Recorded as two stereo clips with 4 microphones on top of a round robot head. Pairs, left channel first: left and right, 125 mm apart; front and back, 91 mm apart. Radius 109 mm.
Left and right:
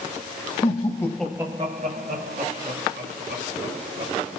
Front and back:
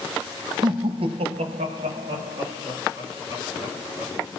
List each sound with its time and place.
0.6 s laughter: 145° left, 1.2 m; by 4.1 s 95° right, 3 m